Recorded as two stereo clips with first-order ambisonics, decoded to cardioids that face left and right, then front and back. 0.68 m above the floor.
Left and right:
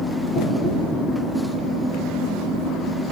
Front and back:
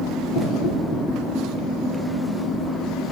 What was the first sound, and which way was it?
Knocking, 45° left.